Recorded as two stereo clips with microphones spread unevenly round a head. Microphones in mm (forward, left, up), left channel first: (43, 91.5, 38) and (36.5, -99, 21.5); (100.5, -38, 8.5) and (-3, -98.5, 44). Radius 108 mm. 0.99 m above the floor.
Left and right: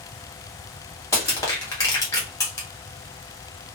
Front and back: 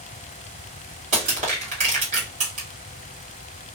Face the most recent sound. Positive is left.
turn(degrees=165)